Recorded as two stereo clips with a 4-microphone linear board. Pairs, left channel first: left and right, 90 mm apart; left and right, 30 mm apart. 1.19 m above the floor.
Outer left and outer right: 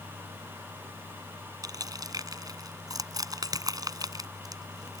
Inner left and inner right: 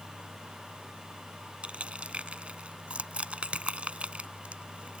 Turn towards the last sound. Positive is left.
turn(degrees=-45)  # may be behind; listen again after turning